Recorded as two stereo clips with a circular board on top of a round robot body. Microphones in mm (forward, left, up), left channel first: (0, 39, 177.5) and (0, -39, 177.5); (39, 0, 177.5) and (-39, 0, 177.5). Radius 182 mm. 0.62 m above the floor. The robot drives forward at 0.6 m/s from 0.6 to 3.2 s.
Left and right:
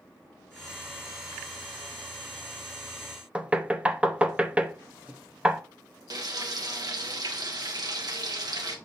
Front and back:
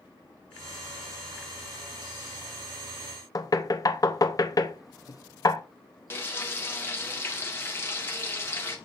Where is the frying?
60° right, 2 m.